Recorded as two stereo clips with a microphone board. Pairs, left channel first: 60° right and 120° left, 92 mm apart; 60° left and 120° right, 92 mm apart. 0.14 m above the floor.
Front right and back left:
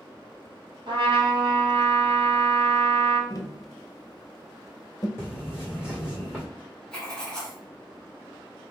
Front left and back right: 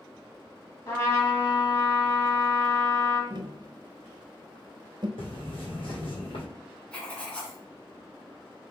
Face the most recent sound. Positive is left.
turn(degrees=5)